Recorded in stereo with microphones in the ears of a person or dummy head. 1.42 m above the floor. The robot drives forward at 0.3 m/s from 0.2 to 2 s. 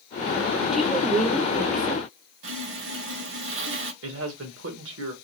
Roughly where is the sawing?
Right.